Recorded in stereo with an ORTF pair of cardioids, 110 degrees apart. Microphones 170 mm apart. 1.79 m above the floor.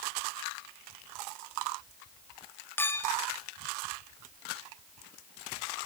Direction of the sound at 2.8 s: 15° left.